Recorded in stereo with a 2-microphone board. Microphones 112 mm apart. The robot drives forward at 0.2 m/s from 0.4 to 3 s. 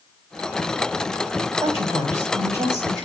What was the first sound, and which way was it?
A woman speaking, 35° right (ahead or behind).